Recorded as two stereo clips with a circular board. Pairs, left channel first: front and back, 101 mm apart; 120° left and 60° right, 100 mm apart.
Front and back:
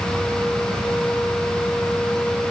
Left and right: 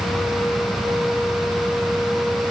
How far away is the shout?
I don't hear a shout.